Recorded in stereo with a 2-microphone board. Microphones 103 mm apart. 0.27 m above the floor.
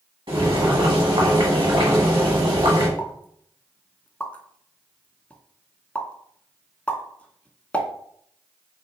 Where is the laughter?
No laughter in this recording.